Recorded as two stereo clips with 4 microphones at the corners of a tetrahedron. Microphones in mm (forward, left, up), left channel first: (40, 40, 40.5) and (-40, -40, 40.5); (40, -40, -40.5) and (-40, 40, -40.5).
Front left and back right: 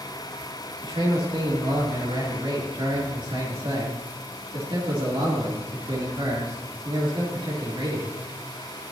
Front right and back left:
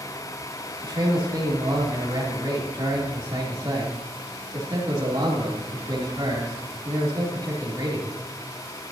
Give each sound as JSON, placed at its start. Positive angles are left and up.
{"t": 0.8, "sound": "a man speaking", "azimuth_deg": -170, "distance_m": 3.0}